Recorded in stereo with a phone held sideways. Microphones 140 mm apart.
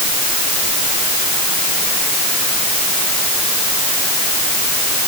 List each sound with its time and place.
Only background noise.